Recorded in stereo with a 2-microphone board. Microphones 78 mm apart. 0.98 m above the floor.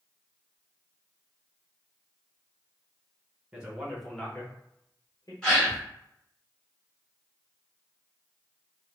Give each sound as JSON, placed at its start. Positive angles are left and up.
{"t": 3.5, "sound": "a man speaking", "side_deg": -15, "distance_m": 1.2}
{"t": 5.4, "sound": "a gasp", "side_deg": 10, "distance_m": 1.1}